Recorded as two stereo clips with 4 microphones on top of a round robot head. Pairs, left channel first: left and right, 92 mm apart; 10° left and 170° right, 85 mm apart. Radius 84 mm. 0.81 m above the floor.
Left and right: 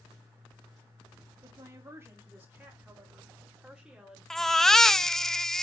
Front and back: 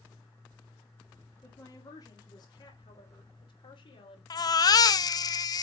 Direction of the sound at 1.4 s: 40° right.